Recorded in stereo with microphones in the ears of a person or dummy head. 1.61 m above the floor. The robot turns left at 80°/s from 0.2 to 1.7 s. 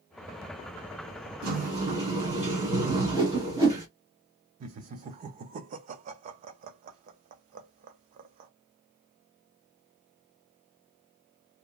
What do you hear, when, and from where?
1.4 s a sliding door: 60° right (ahead or behind), 1.1 m; by 3.9 s 35° right (ahead or behind), 1.1 m
2.9 s a whoosh: 20° right (ahead or behind), 0.9 m
4.6 s laughter: 40° right (ahead or behind), 0.5 m